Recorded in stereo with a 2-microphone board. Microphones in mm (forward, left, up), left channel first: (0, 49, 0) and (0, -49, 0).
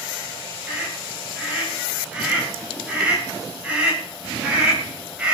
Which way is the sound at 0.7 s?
15° right (ahead or behind).